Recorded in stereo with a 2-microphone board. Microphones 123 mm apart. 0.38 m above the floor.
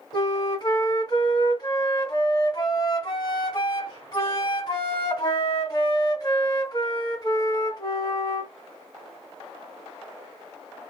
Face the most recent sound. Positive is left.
turn(degrees=40)  # may be behind; listen again after turning